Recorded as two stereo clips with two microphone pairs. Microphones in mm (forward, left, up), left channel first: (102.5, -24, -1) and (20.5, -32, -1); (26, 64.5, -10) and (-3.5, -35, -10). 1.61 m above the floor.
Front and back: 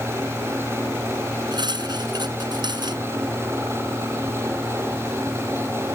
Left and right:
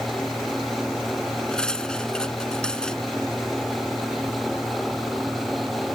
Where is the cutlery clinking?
155° left.